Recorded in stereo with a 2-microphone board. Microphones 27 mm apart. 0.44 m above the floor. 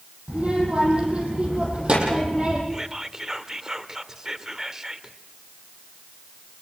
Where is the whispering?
20° right (ahead or behind), 1.5 m.